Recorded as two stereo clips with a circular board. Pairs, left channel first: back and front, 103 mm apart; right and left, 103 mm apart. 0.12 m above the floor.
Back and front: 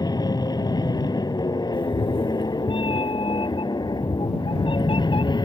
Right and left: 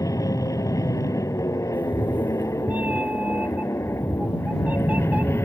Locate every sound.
0.0 s an aircraft: 140° right; by 5.5 s 150° right
1.7 s a cat meowing: 165° left